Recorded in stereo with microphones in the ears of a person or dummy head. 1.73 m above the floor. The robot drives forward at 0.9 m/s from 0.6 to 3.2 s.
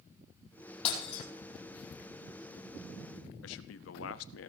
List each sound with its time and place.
0.8 s breaking glass: 35° left (ahead or behind), 4.5 m; by 1.2 s 40° left (ahead or behind), 4 m
3.4 s a man speaking: 80° left, 0.7 m